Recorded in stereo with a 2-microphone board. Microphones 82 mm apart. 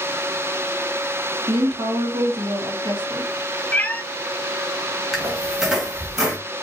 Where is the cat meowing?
20° left (ahead or behind), 0.5 m.